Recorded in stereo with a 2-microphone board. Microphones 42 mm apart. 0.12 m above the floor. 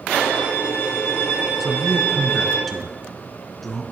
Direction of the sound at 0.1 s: 65° left (ahead or behind).